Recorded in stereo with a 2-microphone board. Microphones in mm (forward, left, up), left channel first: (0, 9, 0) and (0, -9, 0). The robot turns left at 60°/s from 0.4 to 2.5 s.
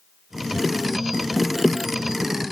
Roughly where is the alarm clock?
No alarm clock in this recording.